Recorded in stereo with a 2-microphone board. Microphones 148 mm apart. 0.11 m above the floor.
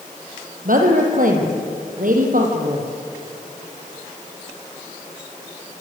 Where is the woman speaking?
65° right (ahead or behind), 4.5 m.